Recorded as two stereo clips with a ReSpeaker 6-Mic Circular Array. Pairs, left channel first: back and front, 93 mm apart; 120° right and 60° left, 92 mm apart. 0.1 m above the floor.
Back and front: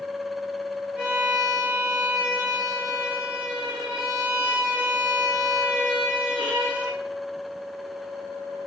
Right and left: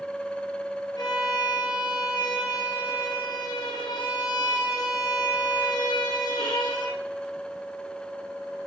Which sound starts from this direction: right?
A violin, at 1.0 s.